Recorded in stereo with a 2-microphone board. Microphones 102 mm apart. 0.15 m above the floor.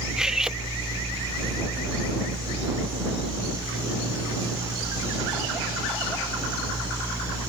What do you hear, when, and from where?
0.2 s cutlery clinking: 5° right (ahead or behind)